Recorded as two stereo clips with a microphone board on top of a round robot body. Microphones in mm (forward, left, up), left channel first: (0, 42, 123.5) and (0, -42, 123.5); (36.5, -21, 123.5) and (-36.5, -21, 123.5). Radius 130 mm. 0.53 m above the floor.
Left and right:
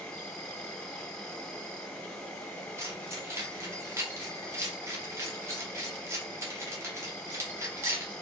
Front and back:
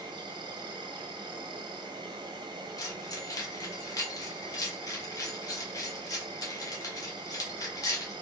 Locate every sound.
0.0 s an insect: 170° left, 0.8 m
2.8 s keys jangling: 35° right, 1.7 m